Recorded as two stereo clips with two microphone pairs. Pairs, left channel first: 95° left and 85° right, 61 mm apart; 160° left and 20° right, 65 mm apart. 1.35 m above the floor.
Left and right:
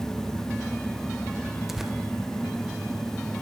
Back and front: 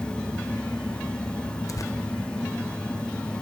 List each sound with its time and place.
1.7 s tearing paper: 170° right, 0.8 m